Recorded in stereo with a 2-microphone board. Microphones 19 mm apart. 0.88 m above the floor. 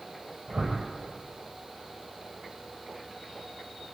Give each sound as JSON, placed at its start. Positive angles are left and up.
{"t": 0.5, "sound": "a whoosh", "side_deg": -55, "distance_m": 8.0}